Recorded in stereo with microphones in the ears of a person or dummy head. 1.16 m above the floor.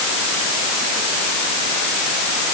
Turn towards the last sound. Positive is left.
No sound to turn to.